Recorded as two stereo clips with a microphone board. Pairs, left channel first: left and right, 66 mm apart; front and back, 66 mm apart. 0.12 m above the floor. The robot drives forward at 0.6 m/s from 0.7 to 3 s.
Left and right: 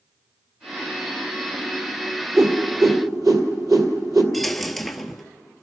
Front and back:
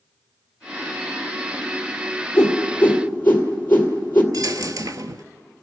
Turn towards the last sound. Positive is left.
turn(degrees=180)